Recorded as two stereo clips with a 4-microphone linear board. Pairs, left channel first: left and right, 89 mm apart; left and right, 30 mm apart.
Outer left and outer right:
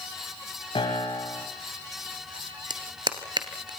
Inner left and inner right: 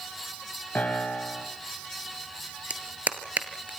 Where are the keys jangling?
I don't hear keys jangling.